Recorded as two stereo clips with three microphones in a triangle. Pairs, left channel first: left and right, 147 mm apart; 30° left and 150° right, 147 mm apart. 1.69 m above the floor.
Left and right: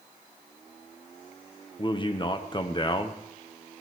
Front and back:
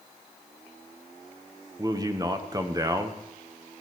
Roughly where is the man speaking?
Behind left.